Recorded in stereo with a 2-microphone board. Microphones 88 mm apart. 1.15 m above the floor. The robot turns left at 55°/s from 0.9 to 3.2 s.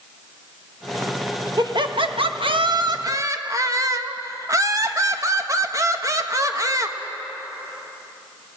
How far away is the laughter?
About 1.4 m.